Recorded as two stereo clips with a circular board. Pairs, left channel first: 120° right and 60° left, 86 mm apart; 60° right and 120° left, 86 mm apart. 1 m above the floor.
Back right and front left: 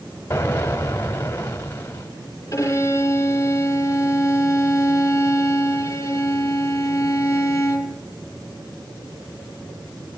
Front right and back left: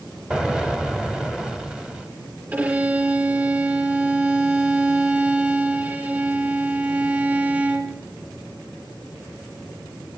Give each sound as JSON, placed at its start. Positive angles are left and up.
{"t": 0.3, "sound": "an explosion", "azimuth_deg": -165, "distance_m": 1.0}
{"t": 2.5, "sound": "a violin", "azimuth_deg": -175, "distance_m": 4.5}